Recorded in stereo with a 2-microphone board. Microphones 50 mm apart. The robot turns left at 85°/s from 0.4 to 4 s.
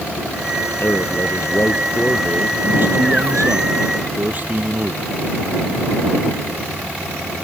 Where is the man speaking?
130° left; by 5.0 s 140° right.